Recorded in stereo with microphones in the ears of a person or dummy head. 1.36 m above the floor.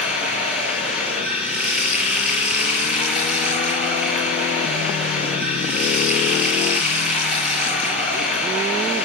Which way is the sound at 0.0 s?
10° right (ahead or behind).